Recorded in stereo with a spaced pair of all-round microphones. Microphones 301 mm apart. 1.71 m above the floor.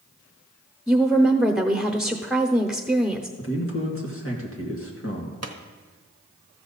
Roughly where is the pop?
Right.